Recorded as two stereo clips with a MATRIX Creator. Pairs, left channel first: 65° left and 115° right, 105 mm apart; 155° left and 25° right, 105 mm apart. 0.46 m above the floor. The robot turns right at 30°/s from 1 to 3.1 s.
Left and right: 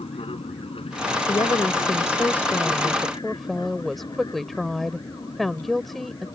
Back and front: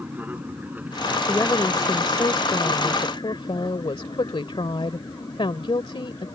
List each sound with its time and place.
0.0 s an aircraft: 50° left; by 6.4 s 110° left
1.3 s a woman speaking: 100° left; by 6.3 s 155° left